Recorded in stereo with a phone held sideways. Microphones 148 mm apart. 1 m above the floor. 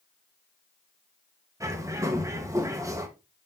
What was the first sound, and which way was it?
A bird, 20° right (ahead or behind).